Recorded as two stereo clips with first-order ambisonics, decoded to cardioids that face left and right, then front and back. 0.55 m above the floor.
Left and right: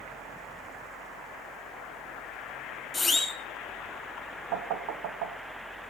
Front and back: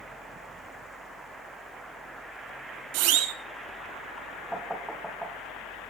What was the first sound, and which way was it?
A siren, 175° left.